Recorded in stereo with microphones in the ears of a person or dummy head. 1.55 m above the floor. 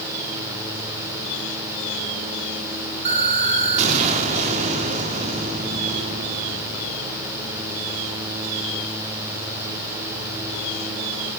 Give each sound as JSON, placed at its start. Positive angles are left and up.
{"t": 3.0, "sound": "an explosion", "side_deg": -40, "distance_m": 1.9}